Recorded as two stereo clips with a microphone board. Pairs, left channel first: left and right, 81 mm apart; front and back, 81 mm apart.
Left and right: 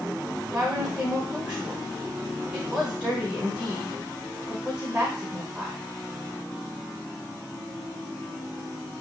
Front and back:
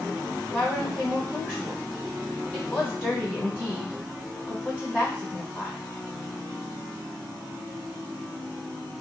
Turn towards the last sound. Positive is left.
turn(degrees=-25)